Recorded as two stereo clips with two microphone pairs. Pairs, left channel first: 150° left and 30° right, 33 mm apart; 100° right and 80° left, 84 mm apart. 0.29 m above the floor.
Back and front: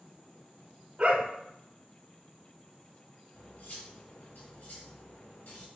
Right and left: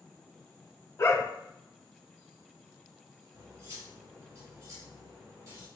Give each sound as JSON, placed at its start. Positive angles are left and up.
{"t": 1.0, "sound": "a dog barking", "azimuth_deg": -60, "distance_m": 0.6}
{"t": 3.3, "sound": "cutlery clinking", "azimuth_deg": 130, "distance_m": 1.5}